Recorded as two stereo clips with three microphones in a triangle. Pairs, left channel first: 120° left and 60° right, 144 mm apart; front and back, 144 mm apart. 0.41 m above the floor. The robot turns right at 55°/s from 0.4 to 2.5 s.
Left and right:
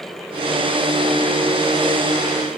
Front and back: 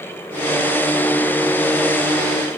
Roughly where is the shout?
I don't hear a shout.